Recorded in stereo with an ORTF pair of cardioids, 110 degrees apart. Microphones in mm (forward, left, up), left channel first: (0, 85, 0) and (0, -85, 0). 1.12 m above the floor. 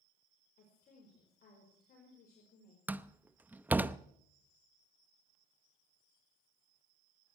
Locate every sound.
0.6 s a woman speaking: 55° left, 5 m
2.9 s a door slam: 10° right, 0.7 m